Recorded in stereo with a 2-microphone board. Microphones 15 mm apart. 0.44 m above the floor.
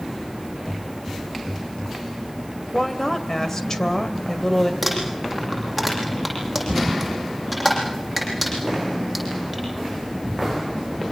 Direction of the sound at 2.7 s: 30° left (ahead or behind).